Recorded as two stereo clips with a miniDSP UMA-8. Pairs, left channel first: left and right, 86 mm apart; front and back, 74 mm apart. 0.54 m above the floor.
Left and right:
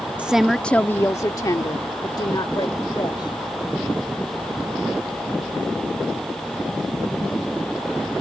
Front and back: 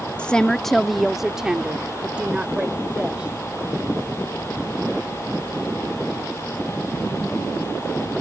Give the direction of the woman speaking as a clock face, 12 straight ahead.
1 o'clock.